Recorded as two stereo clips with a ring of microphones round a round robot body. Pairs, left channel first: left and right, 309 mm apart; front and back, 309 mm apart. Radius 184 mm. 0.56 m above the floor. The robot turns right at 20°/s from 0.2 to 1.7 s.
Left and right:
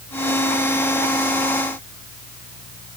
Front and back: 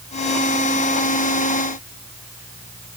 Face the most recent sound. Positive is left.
No sound to turn to.